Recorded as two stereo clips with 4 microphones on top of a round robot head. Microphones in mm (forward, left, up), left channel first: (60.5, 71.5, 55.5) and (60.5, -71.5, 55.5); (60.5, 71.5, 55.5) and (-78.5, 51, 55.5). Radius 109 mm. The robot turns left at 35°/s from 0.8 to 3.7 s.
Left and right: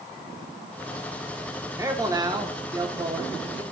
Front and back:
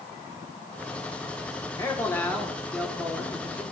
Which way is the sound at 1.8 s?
40° right.